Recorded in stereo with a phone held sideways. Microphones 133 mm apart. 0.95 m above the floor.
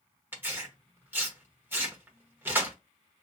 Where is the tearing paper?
15° right (ahead or behind), 1.0 m.